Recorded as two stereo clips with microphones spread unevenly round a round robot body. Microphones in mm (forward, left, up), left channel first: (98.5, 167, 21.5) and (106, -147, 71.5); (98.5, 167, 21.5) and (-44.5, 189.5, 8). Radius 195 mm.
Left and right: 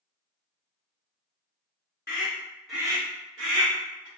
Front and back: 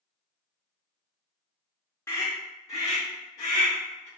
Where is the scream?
65° left, 1.0 m; by 4.1 s 80° right, 1.2 m.